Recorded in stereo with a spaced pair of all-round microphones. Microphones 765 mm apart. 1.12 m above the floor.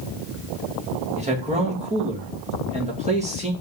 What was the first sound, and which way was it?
A man speaking, 10° right (ahead or behind).